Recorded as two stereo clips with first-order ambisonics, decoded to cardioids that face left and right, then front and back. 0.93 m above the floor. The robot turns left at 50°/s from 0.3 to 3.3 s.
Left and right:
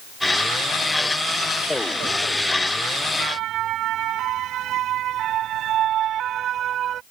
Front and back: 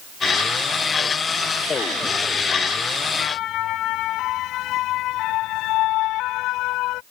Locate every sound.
3.2 s a siren: 40° right; by 7.0 s 35° right